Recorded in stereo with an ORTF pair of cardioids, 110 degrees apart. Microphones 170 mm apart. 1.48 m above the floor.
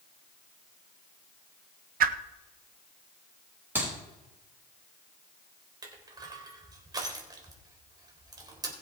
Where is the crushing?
25° right, 3.5 m.